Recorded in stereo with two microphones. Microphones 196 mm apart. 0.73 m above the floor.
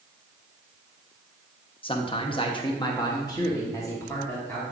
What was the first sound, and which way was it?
A man speaking, 25° left (ahead or behind).